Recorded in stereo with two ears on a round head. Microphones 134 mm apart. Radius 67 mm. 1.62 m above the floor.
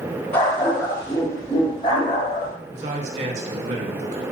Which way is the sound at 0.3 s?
15° left (ahead or behind).